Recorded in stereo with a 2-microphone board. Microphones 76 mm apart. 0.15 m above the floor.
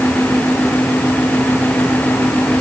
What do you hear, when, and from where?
Only background noise.